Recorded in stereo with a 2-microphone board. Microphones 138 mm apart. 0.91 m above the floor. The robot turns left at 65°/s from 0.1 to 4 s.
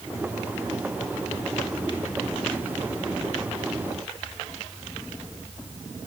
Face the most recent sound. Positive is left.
No sound to turn to.